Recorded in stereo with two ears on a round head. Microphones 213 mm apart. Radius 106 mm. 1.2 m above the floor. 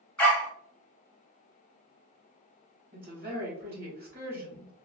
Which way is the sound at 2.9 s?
40° right (ahead or behind).